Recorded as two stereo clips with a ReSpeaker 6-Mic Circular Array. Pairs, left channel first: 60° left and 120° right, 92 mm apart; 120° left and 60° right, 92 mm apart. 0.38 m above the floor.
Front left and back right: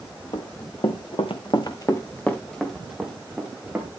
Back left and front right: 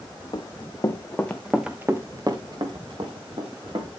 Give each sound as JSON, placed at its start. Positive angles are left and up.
{"t": 0.3, "sound": "running footsteps", "azimuth_deg": 80, "distance_m": 2.0}